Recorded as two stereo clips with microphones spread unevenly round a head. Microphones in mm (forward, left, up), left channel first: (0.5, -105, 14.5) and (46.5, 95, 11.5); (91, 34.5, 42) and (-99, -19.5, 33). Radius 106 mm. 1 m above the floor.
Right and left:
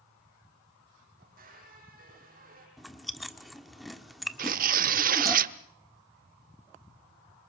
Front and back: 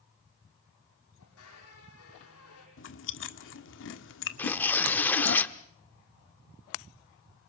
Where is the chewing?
15° right, 1.7 m.